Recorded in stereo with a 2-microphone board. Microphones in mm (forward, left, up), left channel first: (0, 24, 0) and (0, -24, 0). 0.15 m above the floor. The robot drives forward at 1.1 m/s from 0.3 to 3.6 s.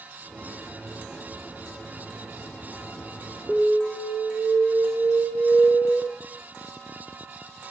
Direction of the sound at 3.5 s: Centre (ahead or behind).